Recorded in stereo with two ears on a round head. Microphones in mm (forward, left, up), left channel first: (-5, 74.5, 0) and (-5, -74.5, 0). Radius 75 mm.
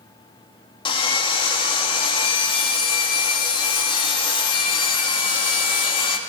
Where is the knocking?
No knocking in this recording.